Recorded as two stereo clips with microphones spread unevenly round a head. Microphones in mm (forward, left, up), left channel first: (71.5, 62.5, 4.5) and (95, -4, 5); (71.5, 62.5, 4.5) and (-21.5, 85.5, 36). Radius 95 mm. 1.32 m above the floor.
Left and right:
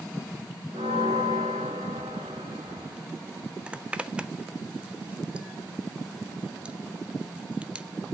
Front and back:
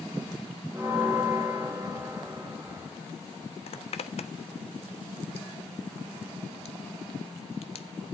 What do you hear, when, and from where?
0.7 s a bell: 115° right, 1.6 m
3.7 s a zipper: 5° left, 1.0 m